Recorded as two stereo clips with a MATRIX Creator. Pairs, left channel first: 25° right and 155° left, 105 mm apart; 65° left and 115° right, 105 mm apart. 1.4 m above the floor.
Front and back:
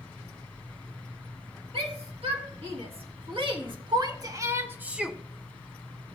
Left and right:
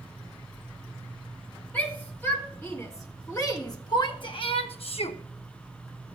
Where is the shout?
140° left, 2.5 m; by 5.2 s 70° left, 1.0 m.